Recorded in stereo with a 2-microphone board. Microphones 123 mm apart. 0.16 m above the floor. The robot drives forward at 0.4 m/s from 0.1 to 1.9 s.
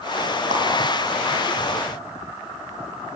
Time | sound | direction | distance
0.5 | a clap | 75° right (ahead or behind) | 5.5 m